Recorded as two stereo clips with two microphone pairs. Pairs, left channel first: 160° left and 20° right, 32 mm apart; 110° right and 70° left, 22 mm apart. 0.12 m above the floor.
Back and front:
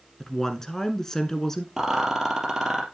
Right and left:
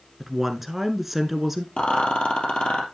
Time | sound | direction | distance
0.2 | a woman speaking | 125° left | 1.1 m
1.8 | a rattle | 95° right | 3 m